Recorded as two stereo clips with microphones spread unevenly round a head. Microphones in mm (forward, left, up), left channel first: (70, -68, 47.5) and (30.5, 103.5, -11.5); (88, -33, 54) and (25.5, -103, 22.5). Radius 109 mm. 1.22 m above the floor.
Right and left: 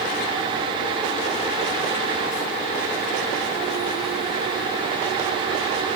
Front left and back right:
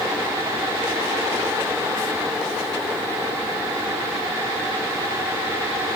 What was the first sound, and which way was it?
Only background noise.